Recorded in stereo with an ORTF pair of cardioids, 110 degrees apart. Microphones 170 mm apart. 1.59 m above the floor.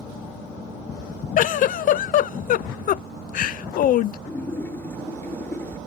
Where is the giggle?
55° left.